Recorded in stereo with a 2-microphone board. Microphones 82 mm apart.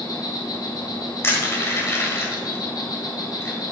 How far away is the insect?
About 1.6 m.